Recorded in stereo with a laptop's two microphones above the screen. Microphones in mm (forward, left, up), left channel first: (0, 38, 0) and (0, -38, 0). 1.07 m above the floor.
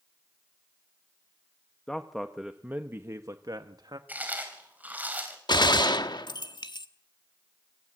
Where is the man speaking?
10° left (ahead or behind), 1.1 m; by 4.0 s 65° right (ahead or behind), 1.4 m.